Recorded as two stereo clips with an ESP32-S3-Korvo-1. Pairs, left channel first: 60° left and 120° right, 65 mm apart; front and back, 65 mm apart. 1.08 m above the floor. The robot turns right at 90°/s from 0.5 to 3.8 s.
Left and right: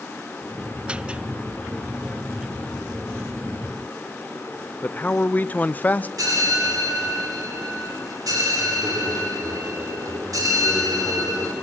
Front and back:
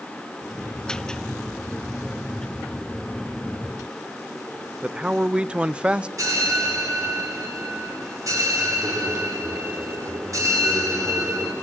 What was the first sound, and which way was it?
A man speaking, 115° left.